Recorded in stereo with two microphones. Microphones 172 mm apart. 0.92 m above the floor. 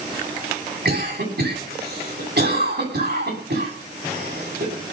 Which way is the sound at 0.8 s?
85° right.